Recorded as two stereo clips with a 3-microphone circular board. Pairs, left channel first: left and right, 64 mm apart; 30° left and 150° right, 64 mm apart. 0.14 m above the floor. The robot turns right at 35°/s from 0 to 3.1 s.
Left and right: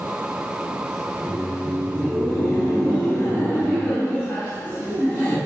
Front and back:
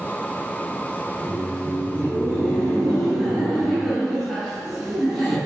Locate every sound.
1.1 s laughter: 45° left, 1.3 m; by 5.4 s 115° left, 1.3 m